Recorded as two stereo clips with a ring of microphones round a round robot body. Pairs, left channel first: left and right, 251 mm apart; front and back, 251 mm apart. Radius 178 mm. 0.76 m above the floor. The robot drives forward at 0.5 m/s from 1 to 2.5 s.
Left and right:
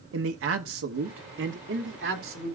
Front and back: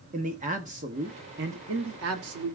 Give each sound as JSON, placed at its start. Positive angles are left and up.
{"t": 0.1, "sound": "a man speaking", "azimuth_deg": -120, "distance_m": 0.8}